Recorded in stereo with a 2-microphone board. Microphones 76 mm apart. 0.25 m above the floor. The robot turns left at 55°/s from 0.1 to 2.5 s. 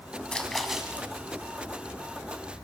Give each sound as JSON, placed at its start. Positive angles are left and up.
{"t": 0.3, "sound": "a splash", "azimuth_deg": 15, "distance_m": 2.5}